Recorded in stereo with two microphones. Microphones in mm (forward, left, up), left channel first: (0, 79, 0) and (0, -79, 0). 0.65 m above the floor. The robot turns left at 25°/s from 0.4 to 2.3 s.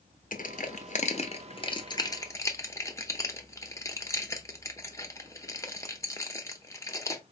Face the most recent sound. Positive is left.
turn(degrees=20)  # may be behind; listen again after turning